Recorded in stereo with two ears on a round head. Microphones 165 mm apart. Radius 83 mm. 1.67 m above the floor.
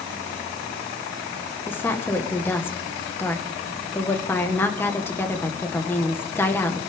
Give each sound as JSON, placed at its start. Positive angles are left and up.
{"t": 1.7, "sound": "a woman speaking", "side_deg": 10, "distance_m": 1.6}